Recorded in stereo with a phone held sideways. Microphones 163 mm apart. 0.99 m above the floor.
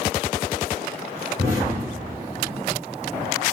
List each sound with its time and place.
1.4 s an explosion: 45° left (ahead or behind), 1.8 m